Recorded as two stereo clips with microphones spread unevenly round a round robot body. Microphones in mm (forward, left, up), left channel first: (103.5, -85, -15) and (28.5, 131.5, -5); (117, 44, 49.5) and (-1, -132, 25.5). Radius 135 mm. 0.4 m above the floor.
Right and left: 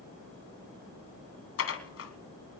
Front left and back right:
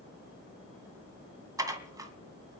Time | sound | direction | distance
1.6 | dishes clattering | 50° right | 2 m